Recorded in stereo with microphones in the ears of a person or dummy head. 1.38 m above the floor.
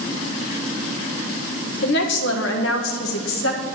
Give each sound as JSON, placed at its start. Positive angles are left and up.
{"t": 1.8, "sound": "a woman speaking", "side_deg": 65, "distance_m": 1.5}